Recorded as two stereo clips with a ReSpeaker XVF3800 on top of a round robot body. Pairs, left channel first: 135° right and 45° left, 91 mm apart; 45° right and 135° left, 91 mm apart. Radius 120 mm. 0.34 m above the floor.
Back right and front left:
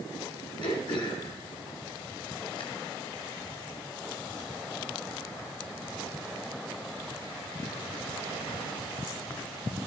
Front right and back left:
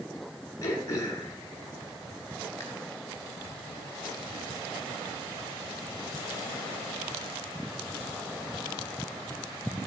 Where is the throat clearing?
100° right, 1.9 m.